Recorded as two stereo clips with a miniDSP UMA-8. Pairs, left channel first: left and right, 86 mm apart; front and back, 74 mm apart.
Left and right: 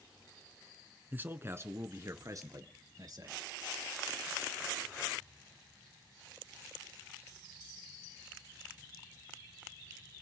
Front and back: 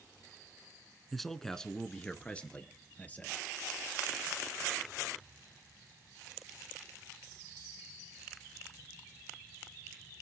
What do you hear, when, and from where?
1.1 s a man speaking: 85° right, 1.2 m; by 3.4 s 65° right, 2.5 m